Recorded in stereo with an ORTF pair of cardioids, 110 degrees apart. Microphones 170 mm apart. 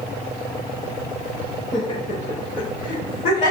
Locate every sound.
1.7 s laughter: 25° left, 0.7 m; by 3.5 s 65° left, 1.3 m